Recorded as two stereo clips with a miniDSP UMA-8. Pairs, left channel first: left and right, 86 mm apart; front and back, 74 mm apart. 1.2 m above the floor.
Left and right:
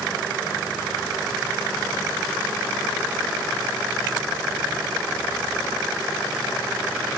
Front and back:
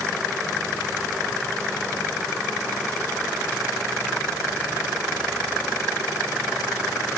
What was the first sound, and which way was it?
Only background noise.